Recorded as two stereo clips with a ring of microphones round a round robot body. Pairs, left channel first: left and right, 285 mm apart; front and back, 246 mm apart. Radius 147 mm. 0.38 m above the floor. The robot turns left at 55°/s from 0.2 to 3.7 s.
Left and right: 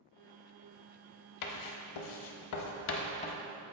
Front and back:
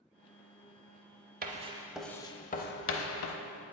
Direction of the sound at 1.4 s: 120° left.